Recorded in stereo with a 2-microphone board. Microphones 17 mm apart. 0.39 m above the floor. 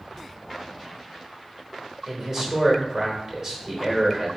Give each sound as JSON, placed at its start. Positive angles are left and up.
{"t": 2.1, "sound": "a man speaking", "side_deg": -25, "distance_m": 0.9}